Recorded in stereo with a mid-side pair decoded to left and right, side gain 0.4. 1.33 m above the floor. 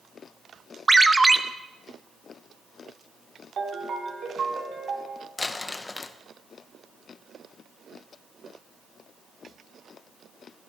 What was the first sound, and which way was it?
A ringtone, 20° right.